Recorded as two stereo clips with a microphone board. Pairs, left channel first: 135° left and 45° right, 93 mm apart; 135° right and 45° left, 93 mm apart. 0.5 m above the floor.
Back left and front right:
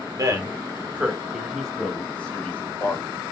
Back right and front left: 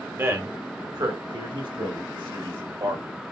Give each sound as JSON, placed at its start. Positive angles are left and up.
{"t": 0.2, "sound": "a man speaking", "azimuth_deg": -15, "distance_m": 1.1}